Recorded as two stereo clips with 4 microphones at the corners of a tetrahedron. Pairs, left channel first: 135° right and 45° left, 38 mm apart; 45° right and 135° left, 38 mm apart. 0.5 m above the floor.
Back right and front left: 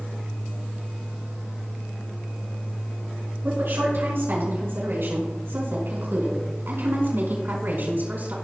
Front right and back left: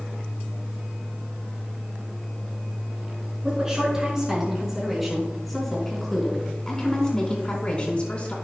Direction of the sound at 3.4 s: 65° left.